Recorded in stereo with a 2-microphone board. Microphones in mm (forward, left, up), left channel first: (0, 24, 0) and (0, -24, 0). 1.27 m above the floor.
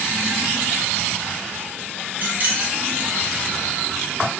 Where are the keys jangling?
35° right (ahead or behind), 0.8 m.